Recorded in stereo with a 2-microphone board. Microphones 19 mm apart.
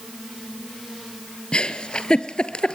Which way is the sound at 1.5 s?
70° left (ahead or behind).